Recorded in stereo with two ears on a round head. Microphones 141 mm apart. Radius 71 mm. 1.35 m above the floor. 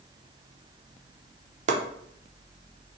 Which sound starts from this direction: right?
Chopping, at 1.7 s.